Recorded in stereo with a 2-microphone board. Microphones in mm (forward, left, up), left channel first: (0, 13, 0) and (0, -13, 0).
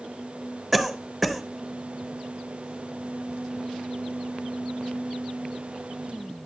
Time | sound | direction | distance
0.7 | a cough | 5° left (ahead or behind) | 0.8 m